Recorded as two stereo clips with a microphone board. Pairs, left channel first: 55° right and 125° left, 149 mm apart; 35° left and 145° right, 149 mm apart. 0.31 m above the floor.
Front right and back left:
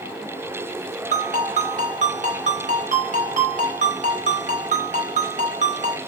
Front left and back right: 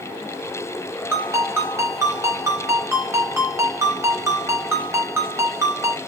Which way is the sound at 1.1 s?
145° left.